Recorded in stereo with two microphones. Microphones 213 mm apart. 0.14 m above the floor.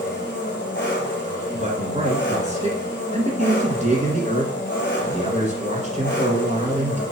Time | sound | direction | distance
0.0 | an engine running | 55° left (ahead or behind) | 2.0 m
1.5 | a man speaking | 35° right (ahead or behind) | 1.6 m